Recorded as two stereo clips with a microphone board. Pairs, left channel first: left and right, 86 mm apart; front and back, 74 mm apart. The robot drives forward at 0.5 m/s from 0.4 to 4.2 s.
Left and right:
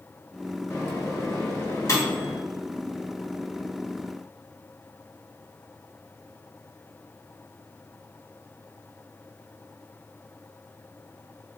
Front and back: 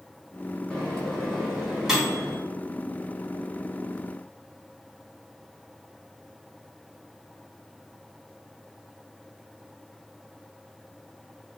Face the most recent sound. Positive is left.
turn(degrees=145)